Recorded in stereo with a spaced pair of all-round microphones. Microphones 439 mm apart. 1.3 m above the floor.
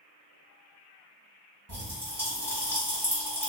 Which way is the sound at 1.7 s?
35° right (ahead or behind).